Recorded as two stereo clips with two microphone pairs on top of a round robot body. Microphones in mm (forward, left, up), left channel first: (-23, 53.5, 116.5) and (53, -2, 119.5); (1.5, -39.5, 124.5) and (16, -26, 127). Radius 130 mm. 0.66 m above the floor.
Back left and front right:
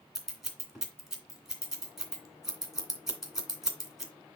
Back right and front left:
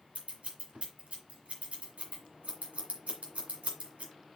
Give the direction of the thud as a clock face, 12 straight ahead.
No thud in this recording.